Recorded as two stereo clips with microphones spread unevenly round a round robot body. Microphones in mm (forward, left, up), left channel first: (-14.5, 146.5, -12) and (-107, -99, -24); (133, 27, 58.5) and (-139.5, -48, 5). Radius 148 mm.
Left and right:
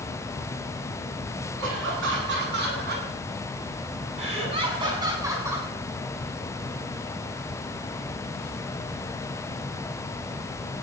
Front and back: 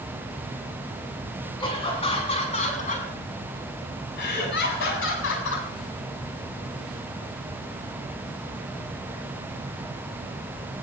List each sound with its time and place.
1.6 s laughter: 60° right, 7.5 m; by 5.7 s 25° right, 6 m